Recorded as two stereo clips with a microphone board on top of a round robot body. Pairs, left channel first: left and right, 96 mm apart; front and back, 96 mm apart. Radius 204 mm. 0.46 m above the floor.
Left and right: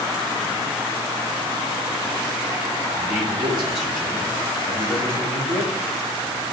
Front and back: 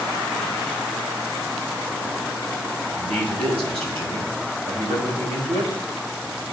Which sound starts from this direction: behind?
A man speaking, at 2.9 s.